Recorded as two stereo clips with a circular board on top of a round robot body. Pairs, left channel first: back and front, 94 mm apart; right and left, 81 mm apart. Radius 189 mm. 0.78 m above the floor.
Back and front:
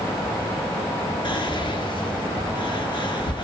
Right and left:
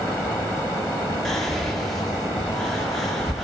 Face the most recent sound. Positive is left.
turn(degrees=-175)